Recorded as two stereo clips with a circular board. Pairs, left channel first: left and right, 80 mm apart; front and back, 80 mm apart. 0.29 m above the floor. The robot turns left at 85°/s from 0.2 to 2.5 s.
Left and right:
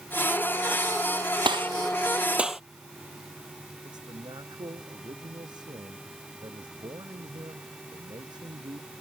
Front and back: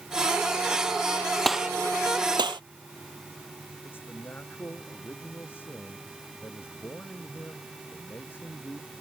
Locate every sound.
1.4 s a gunshot: 85° right; by 2.6 s 175° right
3.8 s a man speaking: 65° right